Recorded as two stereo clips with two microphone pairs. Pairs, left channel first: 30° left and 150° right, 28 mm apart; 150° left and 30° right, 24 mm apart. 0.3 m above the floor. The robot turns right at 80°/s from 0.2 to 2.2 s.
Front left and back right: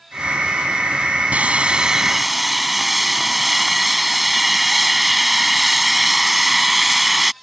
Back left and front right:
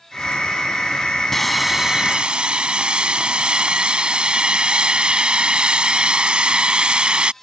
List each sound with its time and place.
1.3 s sawing: 135° right; by 7.3 s 65° right